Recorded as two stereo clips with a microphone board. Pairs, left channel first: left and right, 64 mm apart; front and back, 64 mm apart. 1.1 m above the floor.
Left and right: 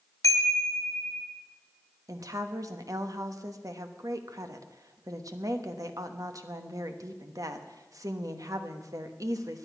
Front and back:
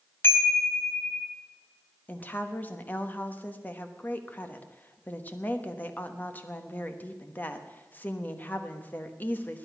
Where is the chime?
55° left, 1.8 m.